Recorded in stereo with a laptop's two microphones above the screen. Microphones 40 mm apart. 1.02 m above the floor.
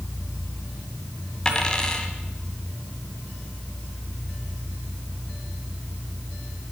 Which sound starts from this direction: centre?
A dropped coin, at 1.4 s.